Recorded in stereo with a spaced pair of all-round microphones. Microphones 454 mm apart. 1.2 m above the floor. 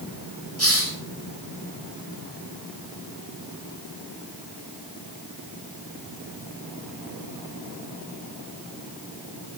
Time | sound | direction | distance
0.6 | a hiss | 30° right (ahead or behind) | 5.5 m